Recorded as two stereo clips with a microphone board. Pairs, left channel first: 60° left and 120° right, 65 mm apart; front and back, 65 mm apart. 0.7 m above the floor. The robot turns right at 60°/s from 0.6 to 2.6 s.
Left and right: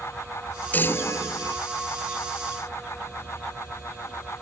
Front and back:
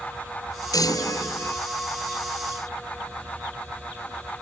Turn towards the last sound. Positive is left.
turn(degrees=110)